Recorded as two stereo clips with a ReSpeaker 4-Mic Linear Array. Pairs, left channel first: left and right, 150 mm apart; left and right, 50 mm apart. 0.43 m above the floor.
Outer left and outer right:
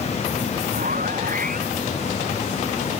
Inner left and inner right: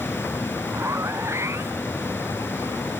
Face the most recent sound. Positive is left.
turn(degrees=-65)  # may be behind; listen again after turning